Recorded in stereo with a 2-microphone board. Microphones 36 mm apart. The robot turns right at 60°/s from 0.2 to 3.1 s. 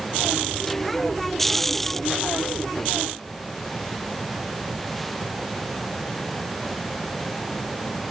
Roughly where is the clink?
I don't hear a clink.